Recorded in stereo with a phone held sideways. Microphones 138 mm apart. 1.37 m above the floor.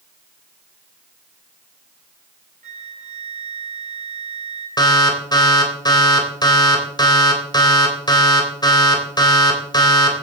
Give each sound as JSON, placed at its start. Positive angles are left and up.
{"t": 2.6, "sound": "a flute", "side_deg": -70, "distance_m": 4.0}
{"t": 4.8, "sound": "an alarm", "side_deg": 30, "distance_m": 3.5}